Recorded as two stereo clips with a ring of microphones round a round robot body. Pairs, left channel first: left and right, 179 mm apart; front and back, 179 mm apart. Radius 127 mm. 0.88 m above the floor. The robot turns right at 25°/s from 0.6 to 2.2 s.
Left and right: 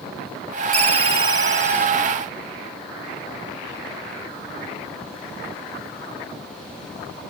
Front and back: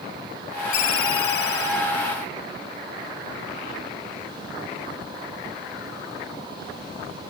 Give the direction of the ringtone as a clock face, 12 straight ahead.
1 o'clock.